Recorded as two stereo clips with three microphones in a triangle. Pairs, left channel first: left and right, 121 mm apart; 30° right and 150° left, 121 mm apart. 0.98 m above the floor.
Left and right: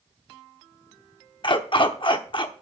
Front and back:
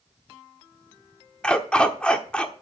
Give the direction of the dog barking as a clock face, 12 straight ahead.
10 o'clock.